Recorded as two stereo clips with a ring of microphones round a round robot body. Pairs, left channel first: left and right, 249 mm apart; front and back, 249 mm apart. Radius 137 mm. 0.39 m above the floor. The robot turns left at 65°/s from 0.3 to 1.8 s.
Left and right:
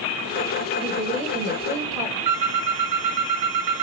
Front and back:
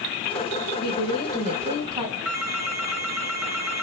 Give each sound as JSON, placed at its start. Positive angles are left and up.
{"t": 0.8, "sound": "a woman speaking", "azimuth_deg": -40, "distance_m": 3.0}
{"t": 2.2, "sound": "a phone ringing", "azimuth_deg": -95, "distance_m": 3.0}